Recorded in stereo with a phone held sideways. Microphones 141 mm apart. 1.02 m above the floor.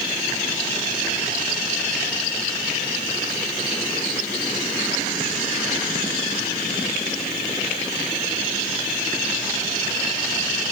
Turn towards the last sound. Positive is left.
No sound to turn to.